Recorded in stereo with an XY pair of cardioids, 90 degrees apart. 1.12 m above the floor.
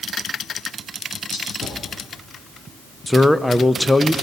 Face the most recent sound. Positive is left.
turn(degrees=10)